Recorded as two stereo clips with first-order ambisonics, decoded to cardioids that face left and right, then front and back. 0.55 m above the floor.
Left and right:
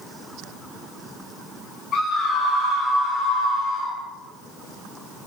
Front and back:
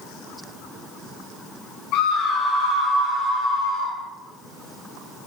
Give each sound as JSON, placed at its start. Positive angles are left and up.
{"t": 1.9, "sound": "a scream", "azimuth_deg": 20, "distance_m": 3.0}